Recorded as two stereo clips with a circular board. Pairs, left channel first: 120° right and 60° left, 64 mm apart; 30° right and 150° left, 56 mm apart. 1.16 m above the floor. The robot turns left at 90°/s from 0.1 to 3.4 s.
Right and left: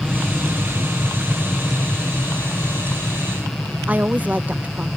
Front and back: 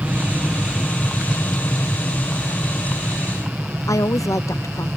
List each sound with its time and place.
0.0 s an aircraft: 145° left; by 5.0 s 155° left
3.9 s a woman speaking: 5° right